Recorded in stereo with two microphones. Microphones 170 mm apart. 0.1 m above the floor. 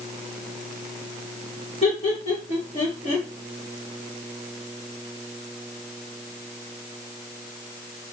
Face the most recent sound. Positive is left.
turn(degrees=40)  # may be behind; listen again after turning